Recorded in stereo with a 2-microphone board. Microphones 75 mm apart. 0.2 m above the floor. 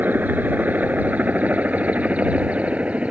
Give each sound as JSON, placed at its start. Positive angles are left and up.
{"t": 0.0, "sound": "a helicopter", "side_deg": -25}